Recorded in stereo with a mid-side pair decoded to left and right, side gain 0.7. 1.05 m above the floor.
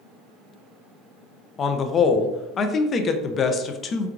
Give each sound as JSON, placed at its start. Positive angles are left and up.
{"t": 1.6, "sound": "a man speaking", "azimuth_deg": 35, "distance_m": 0.5}